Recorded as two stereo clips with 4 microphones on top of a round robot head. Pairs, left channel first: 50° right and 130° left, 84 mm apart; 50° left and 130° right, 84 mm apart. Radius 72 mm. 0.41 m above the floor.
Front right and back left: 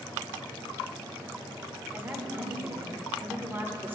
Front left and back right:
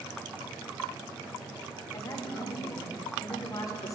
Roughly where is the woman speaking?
Left.